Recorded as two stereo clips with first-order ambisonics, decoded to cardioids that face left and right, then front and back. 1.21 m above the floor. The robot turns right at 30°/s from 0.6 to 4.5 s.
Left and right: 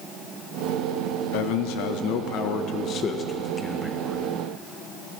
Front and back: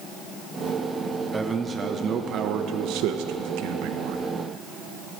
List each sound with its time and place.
1.3 s a man speaking: 100° left, 0.7 m; by 4.2 s 175° right, 0.7 m